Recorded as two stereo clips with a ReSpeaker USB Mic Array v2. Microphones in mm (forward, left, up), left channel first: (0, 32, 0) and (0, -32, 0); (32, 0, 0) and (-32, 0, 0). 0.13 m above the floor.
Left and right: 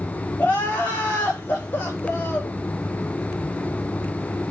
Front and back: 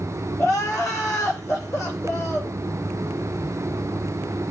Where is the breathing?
I don't hear breathing.